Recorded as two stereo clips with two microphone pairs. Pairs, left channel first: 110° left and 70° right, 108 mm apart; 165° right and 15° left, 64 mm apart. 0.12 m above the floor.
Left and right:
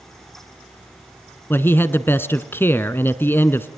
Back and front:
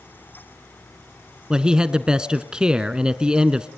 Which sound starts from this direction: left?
A man speaking, at 1.5 s.